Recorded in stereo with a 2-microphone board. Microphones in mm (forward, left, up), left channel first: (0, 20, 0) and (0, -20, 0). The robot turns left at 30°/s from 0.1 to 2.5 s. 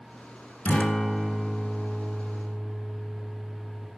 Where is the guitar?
40° left, 1.0 m; by 3.9 s 15° right, 1.0 m.